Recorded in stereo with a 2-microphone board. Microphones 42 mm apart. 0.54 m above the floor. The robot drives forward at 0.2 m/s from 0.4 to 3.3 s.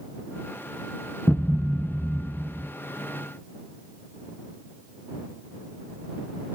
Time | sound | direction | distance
1.3 | a thud | 35° left (ahead or behind) | 0.9 m